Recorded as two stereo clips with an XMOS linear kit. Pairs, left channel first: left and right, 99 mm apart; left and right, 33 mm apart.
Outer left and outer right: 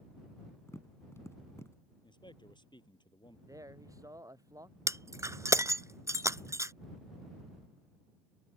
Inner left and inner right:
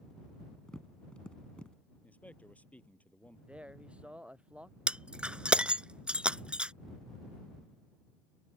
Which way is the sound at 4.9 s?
35° right (ahead or behind).